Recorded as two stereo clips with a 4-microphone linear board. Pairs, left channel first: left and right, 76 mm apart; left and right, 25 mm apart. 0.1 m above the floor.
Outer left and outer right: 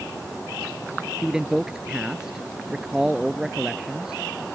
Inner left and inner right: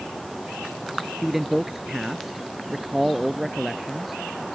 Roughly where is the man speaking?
Centre.